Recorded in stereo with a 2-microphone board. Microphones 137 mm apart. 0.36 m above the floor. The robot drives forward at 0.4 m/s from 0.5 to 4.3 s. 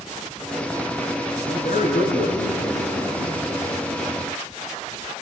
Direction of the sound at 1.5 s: 80° left.